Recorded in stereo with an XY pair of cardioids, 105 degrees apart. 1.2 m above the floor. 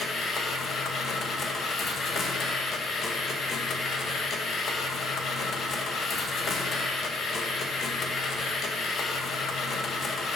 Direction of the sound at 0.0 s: 50° left.